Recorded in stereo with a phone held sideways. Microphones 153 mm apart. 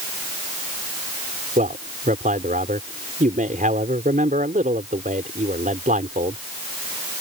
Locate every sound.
1.6 s a man speaking: 70° right (ahead or behind)